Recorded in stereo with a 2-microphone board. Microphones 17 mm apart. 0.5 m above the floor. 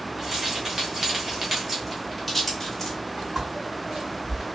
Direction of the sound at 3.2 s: 30° right (ahead or behind).